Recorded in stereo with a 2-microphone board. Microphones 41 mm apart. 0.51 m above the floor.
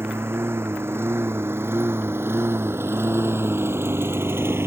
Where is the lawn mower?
85° right; by 4.7 s 90° right.